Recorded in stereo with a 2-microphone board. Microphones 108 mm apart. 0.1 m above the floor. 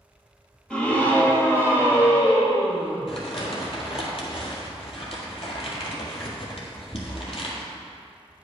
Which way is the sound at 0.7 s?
10° left (ahead or behind).